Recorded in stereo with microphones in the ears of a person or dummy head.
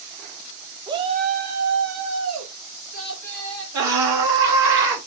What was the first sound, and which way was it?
A shout, 15° right (ahead or behind).